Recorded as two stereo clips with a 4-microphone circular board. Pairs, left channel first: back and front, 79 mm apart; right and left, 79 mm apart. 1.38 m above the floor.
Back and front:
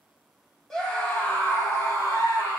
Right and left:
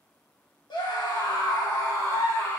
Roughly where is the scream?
Right.